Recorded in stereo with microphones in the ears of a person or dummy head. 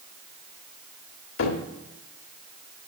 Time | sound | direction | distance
1.4 | a cupboard door | 70° left (ahead or behind) | 1.3 m